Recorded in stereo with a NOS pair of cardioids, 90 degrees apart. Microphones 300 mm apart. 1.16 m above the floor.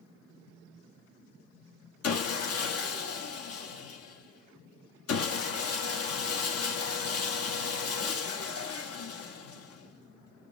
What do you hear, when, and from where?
2.0 s sawing: 50° left, 1.2 m